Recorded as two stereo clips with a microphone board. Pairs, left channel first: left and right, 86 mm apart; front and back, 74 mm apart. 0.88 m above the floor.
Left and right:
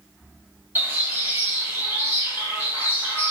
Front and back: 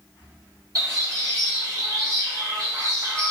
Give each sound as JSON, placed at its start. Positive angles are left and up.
{"t": 0.8, "sound": "a bird", "azimuth_deg": -155, "distance_m": 1.8}